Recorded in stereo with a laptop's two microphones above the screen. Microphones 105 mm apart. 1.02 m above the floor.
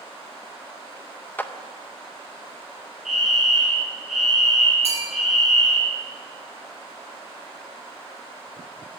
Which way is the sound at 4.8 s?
65° left (ahead or behind).